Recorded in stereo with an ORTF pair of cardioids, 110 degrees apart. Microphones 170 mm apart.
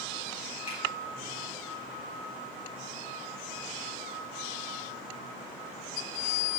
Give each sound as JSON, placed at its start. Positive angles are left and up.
{"t": 0.7, "sound": "a finger snap", "azimuth_deg": 40, "distance_m": 5.0}